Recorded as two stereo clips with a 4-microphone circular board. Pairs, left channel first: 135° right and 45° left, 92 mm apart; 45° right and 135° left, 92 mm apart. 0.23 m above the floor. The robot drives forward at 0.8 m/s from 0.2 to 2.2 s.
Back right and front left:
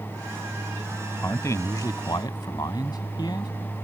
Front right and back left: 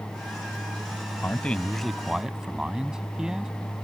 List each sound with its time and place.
1.2 s a man speaking: 95° right; by 3.5 s 145° right